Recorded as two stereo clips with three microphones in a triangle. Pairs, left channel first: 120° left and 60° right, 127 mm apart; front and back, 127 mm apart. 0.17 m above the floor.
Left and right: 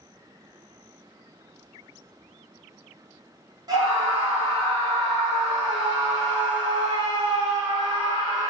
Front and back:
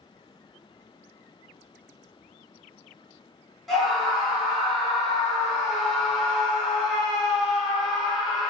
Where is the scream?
90° right, 1.9 m.